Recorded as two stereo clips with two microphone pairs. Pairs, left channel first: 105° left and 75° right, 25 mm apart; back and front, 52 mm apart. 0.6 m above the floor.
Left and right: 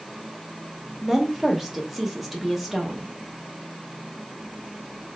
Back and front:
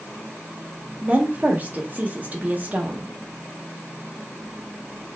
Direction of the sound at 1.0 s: 5° left.